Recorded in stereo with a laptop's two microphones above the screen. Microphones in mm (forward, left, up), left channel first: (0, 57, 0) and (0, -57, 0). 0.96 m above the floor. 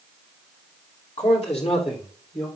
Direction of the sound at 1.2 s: 70° left (ahead or behind).